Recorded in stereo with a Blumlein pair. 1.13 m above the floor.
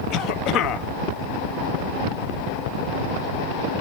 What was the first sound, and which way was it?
A cough, 35° left.